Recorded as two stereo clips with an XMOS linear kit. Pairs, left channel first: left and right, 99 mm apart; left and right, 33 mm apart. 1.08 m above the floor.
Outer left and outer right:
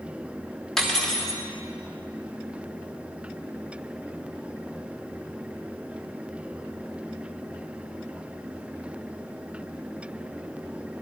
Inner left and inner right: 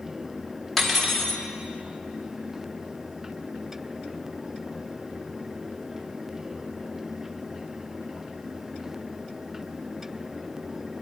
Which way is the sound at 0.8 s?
5° left (ahead or behind).